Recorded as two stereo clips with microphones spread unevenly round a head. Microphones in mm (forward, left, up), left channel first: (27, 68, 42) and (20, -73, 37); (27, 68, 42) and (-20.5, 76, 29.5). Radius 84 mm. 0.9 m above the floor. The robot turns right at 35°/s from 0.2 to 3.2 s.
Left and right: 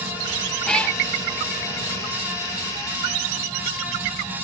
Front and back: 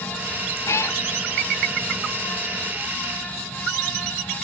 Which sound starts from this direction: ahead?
A cat meowing, at 0.7 s.